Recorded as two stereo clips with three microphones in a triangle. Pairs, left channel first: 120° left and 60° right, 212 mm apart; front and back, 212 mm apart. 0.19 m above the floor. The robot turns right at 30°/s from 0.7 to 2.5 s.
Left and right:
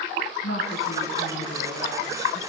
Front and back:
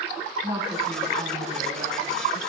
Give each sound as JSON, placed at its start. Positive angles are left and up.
{"t": 0.4, "sound": "a woman speaking", "azimuth_deg": 115, "distance_m": 7.0}